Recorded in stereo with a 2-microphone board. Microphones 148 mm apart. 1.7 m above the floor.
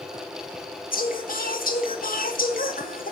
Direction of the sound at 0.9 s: 70° left (ahead or behind).